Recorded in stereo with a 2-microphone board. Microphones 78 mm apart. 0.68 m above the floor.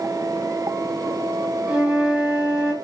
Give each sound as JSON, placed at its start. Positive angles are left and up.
{"t": 1.7, "sound": "a flute", "side_deg": -10, "distance_m": 5.0}